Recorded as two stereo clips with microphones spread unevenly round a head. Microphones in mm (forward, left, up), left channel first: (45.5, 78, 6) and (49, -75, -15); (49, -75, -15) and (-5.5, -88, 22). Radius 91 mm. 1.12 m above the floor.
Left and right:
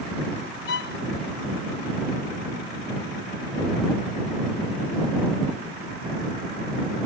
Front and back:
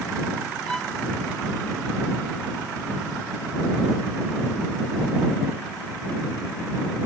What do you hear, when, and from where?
0.7 s a violin: 105° left